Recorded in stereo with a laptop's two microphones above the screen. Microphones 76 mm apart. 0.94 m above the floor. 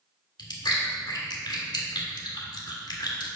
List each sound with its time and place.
0.4 s chewing: 65° left (ahead or behind), 1.5 m